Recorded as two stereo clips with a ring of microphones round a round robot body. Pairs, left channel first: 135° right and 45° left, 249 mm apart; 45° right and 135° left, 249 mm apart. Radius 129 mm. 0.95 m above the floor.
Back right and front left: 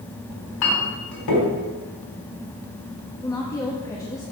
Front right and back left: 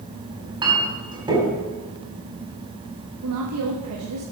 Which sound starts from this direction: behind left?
A woman speaking, at 3.2 s.